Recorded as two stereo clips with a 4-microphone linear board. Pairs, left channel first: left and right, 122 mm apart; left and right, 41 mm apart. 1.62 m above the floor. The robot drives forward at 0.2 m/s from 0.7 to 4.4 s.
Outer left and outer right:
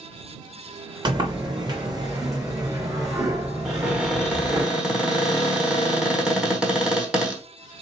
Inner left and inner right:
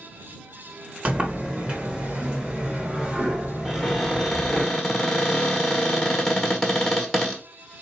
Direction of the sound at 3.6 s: 10° right (ahead or behind).